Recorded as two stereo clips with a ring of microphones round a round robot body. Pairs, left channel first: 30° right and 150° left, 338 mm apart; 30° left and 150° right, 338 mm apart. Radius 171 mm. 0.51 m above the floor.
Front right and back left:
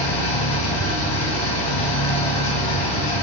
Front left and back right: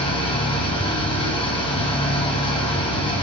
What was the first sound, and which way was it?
An engine running, 45° right.